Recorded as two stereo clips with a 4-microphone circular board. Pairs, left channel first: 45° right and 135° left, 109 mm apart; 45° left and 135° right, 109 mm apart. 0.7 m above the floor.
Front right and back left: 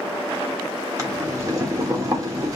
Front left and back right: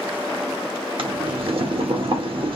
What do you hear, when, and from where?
1.0 s boiling: 170° right, 1.1 m